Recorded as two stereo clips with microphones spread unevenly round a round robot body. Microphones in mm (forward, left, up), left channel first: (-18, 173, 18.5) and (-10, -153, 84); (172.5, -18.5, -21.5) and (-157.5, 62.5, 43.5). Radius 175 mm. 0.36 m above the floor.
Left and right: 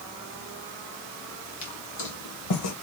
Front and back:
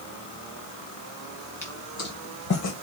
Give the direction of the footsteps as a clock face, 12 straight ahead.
10 o'clock.